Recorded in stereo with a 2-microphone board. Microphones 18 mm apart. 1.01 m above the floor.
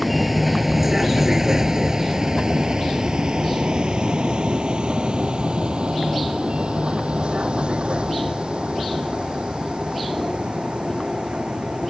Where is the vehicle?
5° right (ahead or behind); by 11.9 s 85° right.